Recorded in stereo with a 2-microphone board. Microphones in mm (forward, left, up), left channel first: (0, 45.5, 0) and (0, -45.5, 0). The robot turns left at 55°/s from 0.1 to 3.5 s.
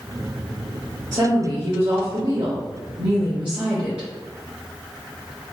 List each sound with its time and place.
1.1 s a woman speaking: 35° right, 1.0 m; by 4.1 s 165° right, 1.0 m